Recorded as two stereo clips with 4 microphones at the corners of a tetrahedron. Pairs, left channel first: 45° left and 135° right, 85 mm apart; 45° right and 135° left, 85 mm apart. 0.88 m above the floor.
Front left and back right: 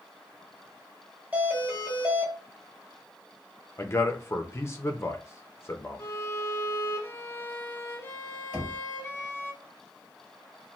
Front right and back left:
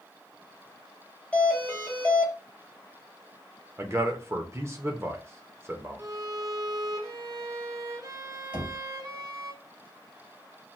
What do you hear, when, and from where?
1.3 s a doorbell: 95° right, 1.1 m
3.8 s a man speaking: 90° left, 0.6 m
6.0 s a violin: 100° left, 0.6 m
8.5 s knocking: 155° left, 1.5 m